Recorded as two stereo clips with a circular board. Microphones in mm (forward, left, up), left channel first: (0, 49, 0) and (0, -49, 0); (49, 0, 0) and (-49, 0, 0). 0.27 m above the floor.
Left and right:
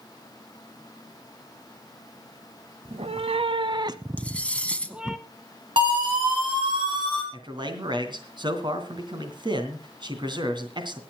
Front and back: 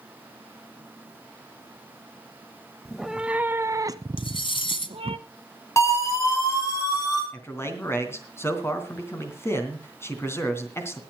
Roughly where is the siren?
Ahead right.